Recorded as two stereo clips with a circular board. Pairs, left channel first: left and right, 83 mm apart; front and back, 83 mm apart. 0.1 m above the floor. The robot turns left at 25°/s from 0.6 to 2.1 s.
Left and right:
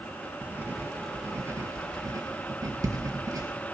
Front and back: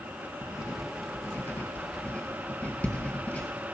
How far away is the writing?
About 2.5 m.